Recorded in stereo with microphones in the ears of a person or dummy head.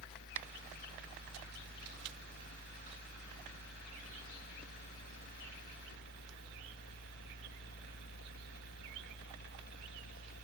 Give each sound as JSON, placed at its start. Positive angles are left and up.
{"t": 0.0, "sound": "a fan", "side_deg": 55}